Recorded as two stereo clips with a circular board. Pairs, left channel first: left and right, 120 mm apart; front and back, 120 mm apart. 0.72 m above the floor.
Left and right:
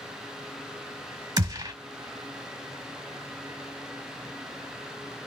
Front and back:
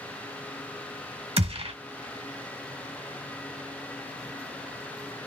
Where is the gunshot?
145° right, 1.3 m.